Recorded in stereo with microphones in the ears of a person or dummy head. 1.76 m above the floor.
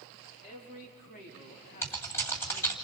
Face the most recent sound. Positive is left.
turn(degrees=15)  # may be behind; listen again after turning